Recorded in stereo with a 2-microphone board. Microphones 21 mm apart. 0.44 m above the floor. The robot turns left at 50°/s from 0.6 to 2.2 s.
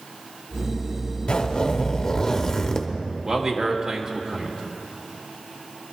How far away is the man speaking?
About 1.3 m.